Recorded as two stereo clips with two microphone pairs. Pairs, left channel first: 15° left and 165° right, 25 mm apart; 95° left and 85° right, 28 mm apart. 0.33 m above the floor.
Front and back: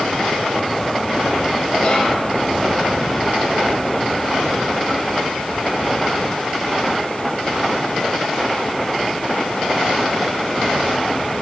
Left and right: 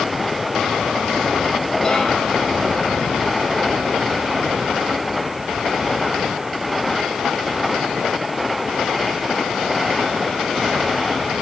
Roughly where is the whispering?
Ahead left.